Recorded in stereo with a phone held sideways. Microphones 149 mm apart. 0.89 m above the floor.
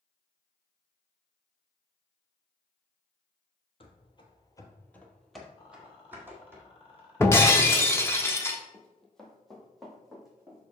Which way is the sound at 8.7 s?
5° left (ahead or behind).